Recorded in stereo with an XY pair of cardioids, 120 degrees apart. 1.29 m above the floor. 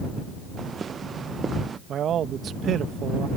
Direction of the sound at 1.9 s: 50° right.